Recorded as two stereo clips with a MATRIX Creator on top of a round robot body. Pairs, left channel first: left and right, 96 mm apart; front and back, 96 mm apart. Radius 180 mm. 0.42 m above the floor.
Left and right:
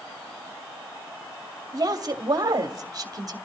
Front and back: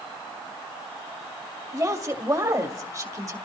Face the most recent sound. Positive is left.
turn(degrees=-135)